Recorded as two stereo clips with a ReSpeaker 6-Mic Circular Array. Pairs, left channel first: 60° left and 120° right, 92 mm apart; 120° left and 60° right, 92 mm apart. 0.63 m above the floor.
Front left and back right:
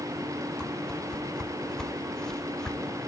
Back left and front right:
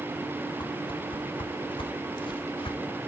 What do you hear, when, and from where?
0.6 s a whoosh: 145° left, 1.0 m